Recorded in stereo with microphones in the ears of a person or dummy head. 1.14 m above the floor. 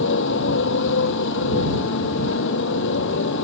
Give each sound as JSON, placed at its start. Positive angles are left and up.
{"t": 0.0, "sound": "a motorcycle", "side_deg": 60}